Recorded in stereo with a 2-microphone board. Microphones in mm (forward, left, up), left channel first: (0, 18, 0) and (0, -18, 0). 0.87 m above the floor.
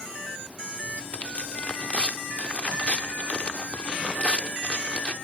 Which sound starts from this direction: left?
Tearing paper, at 1.0 s.